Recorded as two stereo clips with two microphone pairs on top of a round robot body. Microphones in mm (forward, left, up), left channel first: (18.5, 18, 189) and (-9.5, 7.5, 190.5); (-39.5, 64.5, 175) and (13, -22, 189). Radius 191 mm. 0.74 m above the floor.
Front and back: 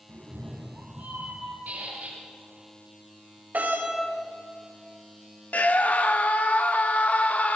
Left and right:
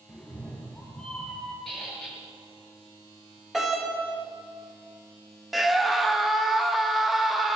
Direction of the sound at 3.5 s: 150° right.